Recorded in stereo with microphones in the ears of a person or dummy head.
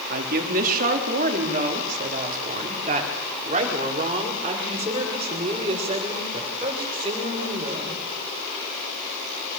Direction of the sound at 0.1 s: 55° right (ahead or behind).